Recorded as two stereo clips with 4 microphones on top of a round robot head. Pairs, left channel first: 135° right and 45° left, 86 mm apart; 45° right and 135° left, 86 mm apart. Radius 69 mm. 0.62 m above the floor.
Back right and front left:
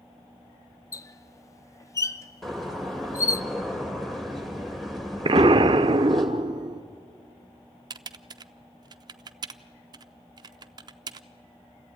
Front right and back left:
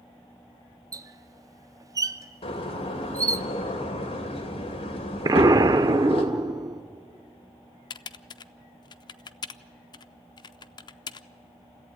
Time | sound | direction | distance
0.9 | a squeak | 175° left | 0.7 m
2.4 | a door slam | 50° right | 2.5 m
5.2 | an explosion | 80° left | 0.5 m
7.9 | typing on a keyboard | straight ahead | 0.5 m